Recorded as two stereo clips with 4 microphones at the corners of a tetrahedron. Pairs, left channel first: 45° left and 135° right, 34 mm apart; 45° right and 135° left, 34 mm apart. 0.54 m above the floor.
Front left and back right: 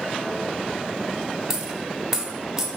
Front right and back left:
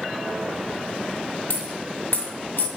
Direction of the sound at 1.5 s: 60° right.